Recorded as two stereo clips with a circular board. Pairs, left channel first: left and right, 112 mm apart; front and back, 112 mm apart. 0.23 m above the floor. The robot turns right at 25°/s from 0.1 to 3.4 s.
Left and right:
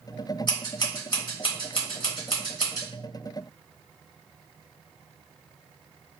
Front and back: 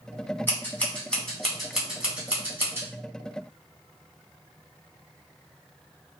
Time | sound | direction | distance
0.5 | scissors | 65° left | 2.0 m